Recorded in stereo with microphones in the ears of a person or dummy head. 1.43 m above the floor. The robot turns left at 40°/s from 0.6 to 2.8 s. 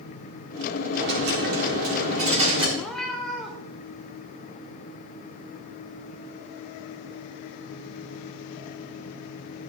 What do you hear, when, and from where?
0.9 s a dropped coin: 75° right, 1.7 m; by 2.7 s 140° right, 1.7 m
2.8 s a cat meowing: centre (ahead or behind), 1.6 m